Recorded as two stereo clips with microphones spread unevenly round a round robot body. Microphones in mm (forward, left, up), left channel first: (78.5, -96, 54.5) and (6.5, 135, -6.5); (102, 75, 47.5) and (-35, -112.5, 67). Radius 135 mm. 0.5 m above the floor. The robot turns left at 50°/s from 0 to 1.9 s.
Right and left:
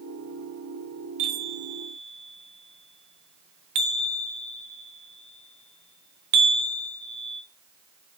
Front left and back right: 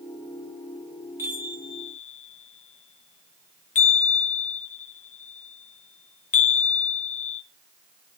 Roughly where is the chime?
Behind left.